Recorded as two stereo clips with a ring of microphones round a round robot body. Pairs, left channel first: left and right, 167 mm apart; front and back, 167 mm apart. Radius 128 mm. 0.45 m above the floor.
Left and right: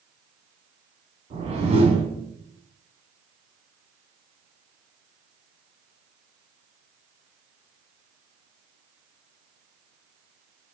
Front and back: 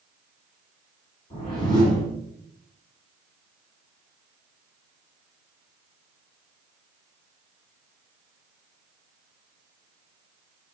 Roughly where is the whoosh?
Ahead right.